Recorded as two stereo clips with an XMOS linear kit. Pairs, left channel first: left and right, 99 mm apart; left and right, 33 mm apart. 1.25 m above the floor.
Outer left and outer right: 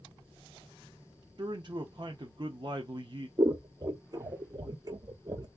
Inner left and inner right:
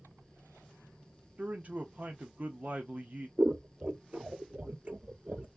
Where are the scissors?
45° right (ahead or behind), 0.6 m.